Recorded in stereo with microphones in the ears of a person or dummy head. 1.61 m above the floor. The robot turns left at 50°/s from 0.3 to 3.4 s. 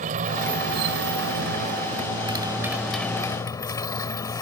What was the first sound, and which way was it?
A motorcycle, 45° right.